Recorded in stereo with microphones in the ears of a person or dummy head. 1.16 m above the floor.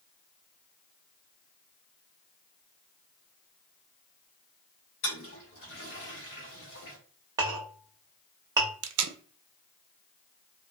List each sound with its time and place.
5.0 s a toilet flushing: 55° left (ahead or behind), 0.9 m
7.4 s a clink: 20° right (ahead or behind), 0.8 m
8.8 s tape being pulled: 80° right, 0.5 m